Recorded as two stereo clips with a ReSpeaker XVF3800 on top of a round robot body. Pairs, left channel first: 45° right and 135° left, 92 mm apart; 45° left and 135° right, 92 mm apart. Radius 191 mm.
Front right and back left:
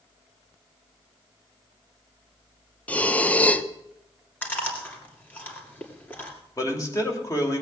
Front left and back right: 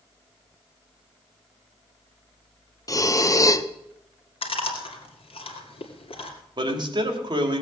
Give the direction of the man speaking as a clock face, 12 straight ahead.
3 o'clock.